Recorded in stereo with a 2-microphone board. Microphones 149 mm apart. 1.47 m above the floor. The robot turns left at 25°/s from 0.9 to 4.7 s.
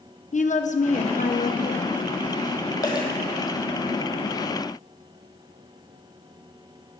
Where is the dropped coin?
25° left (ahead or behind), 2 m; by 3.1 s 30° left (ahead or behind), 2 m.